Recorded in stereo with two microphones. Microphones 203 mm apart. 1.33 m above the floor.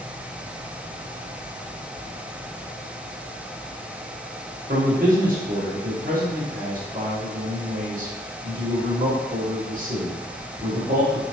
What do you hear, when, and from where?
4.7 s a man speaking: 40° right (ahead or behind), 1.2 m